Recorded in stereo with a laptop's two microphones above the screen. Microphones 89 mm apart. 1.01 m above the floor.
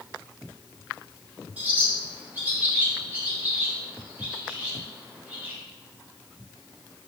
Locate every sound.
1.6 s a bird: 20° right (ahead or behind), 1.3 m